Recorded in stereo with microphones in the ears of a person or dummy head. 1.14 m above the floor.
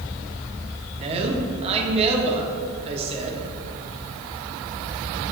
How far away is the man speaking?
About 1.1 m.